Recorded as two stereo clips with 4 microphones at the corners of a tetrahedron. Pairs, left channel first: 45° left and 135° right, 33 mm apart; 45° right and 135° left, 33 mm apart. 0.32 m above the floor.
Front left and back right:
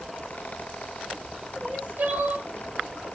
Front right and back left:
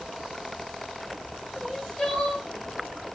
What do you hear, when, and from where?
1.6 s crying: 120° right, 1.7 m